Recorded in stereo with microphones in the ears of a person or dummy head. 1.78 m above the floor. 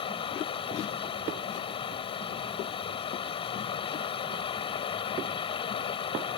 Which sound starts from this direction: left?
Running water, at 0.0 s.